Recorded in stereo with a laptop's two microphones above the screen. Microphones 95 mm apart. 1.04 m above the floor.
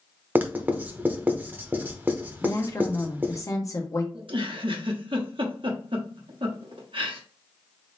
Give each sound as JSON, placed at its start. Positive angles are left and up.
{"t": 0.3, "sound": "writing", "side_deg": -20, "distance_m": 0.9}
{"t": 2.4, "sound": "a woman speaking", "side_deg": 35, "distance_m": 1.2}
{"t": 4.1, "sound": "a giggle", "side_deg": -65, "distance_m": 1.0}